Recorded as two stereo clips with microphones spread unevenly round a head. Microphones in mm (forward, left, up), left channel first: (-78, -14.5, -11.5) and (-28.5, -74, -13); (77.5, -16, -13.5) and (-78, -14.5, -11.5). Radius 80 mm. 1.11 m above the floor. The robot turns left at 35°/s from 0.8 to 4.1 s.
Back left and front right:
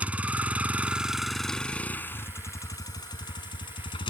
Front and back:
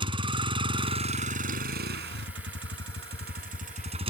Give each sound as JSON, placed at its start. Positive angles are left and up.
{"t": 0.0, "sound": "a vehicle", "azimuth_deg": -120}